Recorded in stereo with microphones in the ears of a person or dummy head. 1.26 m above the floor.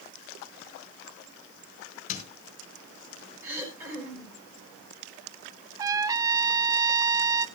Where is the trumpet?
20° right (ahead or behind), 0.6 m.